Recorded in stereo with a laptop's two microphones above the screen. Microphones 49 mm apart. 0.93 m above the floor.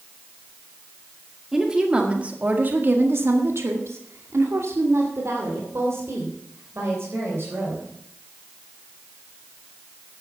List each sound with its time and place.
1.5 s a woman speaking: 10° right (ahead or behind), 2 m; by 7.9 s 60° right (ahead or behind), 5 m